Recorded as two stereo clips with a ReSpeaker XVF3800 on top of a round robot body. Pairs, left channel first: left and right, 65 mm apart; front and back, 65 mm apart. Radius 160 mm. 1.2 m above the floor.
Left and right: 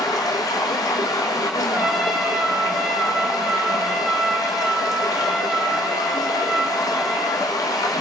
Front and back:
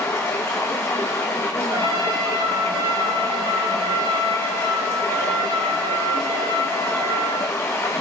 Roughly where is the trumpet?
Behind.